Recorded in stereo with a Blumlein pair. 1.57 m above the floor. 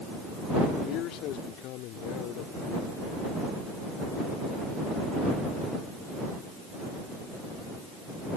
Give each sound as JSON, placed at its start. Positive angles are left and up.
{"t": 0.8, "sound": "a man speaking", "azimuth_deg": 35}